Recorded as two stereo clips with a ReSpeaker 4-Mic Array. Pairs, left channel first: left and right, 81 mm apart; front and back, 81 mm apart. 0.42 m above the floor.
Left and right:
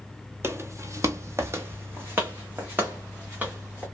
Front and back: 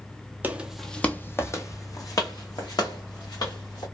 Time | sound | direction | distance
0.4 | footsteps | 125° right | 0.5 m